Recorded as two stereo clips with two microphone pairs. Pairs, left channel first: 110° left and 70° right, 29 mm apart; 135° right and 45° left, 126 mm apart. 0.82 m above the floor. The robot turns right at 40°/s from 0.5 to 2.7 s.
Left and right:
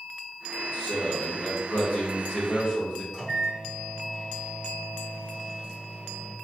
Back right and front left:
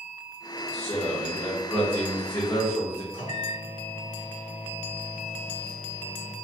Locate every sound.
0.7 s a man speaking: 90° left, 2 m; by 3.0 s 170° left, 2 m
3.1 s a microwave: 170° right, 2 m